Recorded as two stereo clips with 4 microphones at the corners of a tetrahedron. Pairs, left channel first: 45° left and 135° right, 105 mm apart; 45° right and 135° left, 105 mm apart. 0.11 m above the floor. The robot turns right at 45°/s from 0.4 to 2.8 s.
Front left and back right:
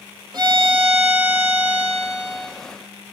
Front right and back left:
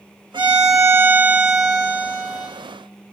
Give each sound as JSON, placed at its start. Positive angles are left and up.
{"t": 0.3, "sound": "a violin", "azimuth_deg": 175, "distance_m": 0.8}